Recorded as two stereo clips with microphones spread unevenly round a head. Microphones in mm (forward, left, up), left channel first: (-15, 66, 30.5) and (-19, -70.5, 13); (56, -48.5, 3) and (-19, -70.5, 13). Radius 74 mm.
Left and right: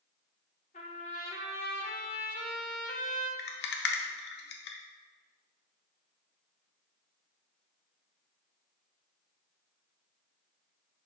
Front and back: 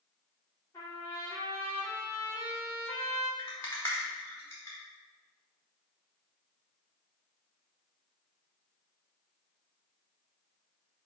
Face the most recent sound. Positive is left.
turn(degrees=90)